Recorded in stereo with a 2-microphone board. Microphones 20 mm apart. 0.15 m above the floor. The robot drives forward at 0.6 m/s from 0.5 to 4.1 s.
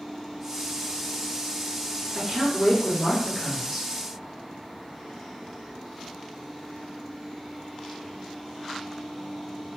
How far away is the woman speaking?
About 2.5 m.